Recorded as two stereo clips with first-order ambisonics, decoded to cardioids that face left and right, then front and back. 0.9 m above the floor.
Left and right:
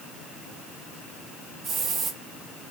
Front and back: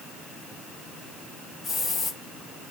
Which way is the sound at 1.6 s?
50° right.